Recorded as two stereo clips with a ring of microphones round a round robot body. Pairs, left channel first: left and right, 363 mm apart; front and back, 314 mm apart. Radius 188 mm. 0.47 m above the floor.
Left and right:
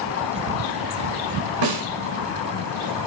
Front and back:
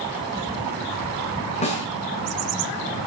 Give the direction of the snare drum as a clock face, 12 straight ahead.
2 o'clock.